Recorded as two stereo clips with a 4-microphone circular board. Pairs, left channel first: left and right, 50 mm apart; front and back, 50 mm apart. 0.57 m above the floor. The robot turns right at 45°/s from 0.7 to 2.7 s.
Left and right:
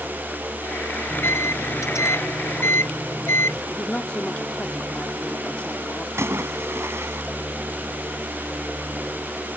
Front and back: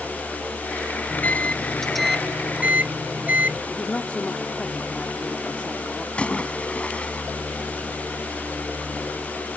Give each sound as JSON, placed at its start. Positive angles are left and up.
{"t": 1.1, "sound": "a microwave", "azimuth_deg": 50}
{"t": 3.7, "sound": "a woman speaking", "azimuth_deg": 45}
{"t": 6.2, "sound": "a splash", "azimuth_deg": -65}